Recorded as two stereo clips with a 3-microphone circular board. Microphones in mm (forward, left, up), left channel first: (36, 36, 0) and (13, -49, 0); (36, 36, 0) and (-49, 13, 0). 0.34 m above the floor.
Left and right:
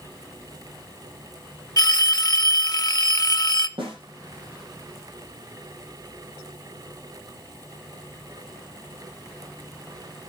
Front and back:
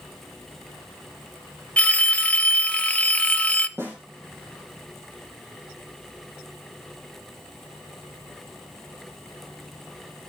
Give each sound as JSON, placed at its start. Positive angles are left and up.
{"t": 1.8, "sound": "a phone ringing", "azimuth_deg": 85, "distance_m": 0.6}
{"t": 3.8, "sound": "a snare drum", "azimuth_deg": -105, "distance_m": 7.0}